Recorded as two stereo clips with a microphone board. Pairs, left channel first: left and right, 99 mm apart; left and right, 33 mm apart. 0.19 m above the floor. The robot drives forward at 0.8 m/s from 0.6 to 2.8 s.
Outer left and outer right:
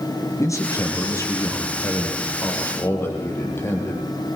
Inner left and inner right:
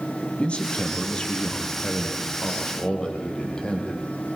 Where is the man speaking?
30° left (ahead or behind), 4.5 m; by 4.0 s 25° left (ahead or behind), 6 m.